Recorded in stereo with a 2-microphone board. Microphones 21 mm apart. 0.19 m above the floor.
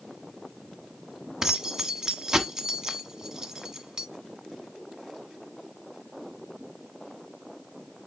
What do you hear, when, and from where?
1.4 s keys jangling: 25° right (ahead or behind), 1.2 m